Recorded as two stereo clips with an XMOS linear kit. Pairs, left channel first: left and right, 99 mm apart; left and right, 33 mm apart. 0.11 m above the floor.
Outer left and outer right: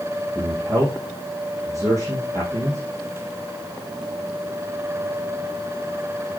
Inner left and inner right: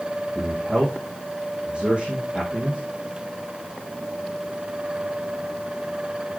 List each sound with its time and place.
0.3 s a man speaking: 35° right (ahead or behind), 5 m